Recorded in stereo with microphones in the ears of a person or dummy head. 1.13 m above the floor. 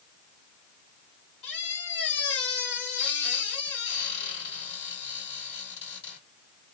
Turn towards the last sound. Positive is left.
turn(degrees=70)  # may be behind; listen again after turning